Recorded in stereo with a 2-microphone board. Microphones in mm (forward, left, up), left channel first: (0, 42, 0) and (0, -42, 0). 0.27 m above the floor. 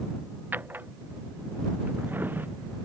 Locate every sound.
0.5 s a drawer: 25° right (ahead or behind)